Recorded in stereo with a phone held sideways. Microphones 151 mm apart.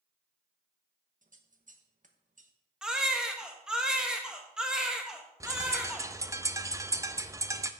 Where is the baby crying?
5° right (ahead or behind), 1.2 m.